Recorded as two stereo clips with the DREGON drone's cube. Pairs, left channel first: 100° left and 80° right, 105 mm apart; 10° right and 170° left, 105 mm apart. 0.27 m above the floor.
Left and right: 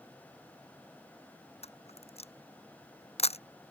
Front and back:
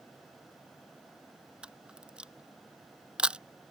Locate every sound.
1.6 s a camera shutter: 90° left